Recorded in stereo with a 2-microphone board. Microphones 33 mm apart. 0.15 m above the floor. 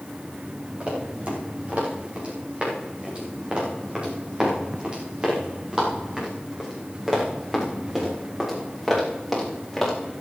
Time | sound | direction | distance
0.8 | running footsteps | 40° right (ahead or behind) | 8 m